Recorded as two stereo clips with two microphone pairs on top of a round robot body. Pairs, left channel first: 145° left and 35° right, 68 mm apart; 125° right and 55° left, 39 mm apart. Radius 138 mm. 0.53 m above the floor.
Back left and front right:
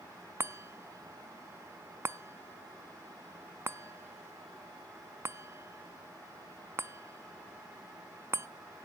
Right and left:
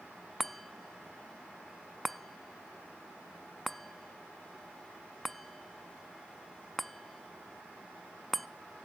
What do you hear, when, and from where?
0.4 s a chime: 40° right, 0.6 m